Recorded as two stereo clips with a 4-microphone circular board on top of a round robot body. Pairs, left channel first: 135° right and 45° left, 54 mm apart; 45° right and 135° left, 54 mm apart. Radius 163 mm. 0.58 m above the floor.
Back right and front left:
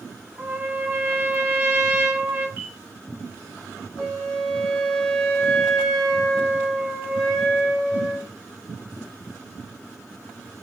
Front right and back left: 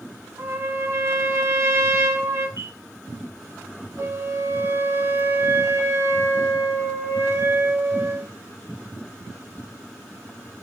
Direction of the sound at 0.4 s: 105° left.